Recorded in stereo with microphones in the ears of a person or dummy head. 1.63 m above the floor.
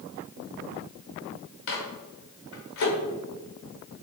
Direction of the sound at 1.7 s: 60° left (ahead or behind).